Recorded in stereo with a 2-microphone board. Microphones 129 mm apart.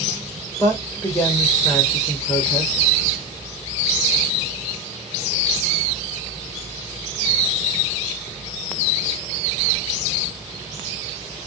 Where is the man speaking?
25° left (ahead or behind), 2 m.